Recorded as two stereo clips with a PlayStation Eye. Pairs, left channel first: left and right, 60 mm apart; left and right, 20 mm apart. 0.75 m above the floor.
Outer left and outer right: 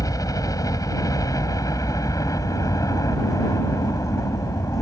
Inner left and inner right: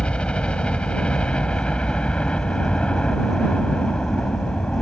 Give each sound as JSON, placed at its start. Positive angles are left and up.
{"t": 0.0, "sound": "a helicopter", "side_deg": 70}